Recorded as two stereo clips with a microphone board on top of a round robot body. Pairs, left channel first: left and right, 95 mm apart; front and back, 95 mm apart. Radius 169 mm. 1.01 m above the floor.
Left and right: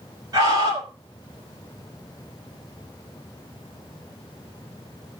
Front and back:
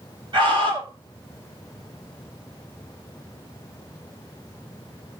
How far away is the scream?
About 5 m.